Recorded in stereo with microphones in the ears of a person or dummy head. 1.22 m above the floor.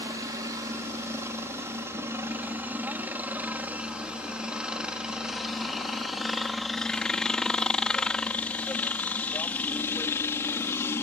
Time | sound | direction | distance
0.0 | a helicopter | 15° right (ahead or behind) | ?